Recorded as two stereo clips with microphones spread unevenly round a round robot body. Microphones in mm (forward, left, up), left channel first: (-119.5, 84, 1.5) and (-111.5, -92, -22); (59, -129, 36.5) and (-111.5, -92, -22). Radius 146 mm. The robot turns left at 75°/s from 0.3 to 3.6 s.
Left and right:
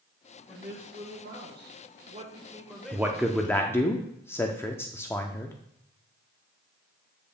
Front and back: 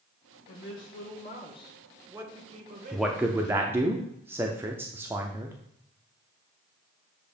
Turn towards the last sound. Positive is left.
turn(degrees=170)